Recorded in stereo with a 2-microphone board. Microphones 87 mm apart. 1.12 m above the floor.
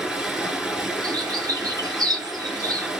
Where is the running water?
5° right (ahead or behind), 1.8 m.